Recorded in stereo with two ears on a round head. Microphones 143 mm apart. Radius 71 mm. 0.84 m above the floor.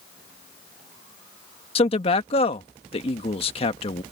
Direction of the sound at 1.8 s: 35° left (ahead or behind).